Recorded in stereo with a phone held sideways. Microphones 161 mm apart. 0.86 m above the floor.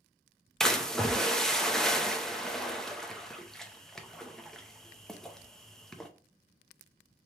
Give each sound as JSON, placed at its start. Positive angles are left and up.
{"t": 0.6, "sound": "a splash", "side_deg": 5, "distance_m": 0.5}